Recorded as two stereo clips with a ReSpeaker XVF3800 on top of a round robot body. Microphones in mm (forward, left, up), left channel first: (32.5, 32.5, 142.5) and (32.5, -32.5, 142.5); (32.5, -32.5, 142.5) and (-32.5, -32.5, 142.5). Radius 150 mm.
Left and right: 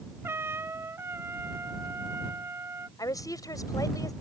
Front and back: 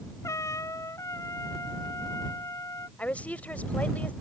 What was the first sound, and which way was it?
A trumpet, 40° right.